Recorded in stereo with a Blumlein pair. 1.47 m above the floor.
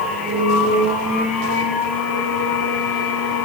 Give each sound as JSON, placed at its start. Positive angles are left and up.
{"t": 0.0, "sound": "a machine running", "azimuth_deg": 15, "distance_m": 5.0}